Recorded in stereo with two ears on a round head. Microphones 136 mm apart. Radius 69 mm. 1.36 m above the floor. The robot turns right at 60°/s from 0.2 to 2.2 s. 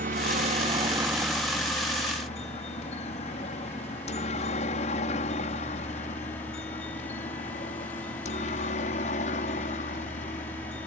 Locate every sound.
0.0 s a helicopter: 60° right (ahead or behind); by 10.9 s 45° left (ahead or behind)